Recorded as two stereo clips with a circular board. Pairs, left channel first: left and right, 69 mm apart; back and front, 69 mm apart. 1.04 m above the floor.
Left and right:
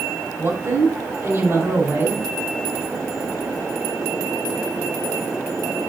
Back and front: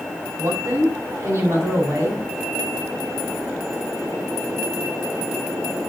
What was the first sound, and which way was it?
A woman speaking, 40° right.